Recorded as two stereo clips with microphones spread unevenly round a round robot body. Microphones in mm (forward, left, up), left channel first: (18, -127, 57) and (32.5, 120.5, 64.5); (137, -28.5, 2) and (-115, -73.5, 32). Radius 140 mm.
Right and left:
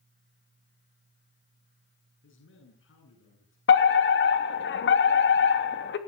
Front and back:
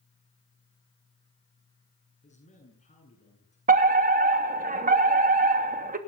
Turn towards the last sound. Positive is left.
turn(degrees=-115)